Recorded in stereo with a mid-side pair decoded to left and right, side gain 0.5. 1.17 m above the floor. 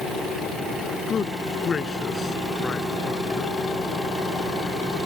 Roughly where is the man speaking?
Ahead left.